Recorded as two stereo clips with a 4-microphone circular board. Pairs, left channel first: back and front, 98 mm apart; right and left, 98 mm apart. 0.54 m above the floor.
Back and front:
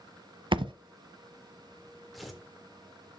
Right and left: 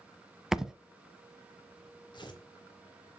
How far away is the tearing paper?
About 1.7 m.